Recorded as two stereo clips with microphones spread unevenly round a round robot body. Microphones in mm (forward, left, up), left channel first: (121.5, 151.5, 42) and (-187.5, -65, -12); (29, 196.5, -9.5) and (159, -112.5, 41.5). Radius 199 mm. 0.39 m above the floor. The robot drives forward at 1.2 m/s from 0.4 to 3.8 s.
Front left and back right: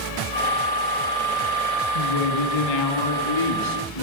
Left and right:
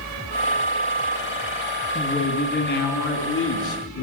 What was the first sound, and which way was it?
A woman speaking, 45° left.